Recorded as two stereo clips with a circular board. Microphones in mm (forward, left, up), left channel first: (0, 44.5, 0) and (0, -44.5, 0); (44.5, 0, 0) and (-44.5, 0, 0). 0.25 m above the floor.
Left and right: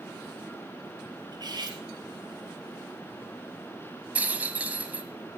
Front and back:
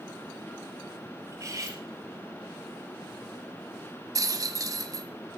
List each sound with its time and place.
1.3 s cutlery clinking: 125° right, 3 m
4.2 s a rattle: 155° right, 1.2 m